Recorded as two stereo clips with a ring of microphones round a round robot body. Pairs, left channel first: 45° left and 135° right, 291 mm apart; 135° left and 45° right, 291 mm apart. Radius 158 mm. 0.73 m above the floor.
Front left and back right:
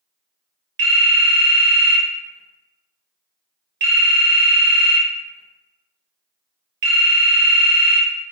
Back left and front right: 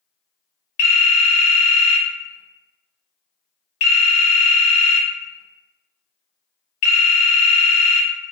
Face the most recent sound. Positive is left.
turn(degrees=175)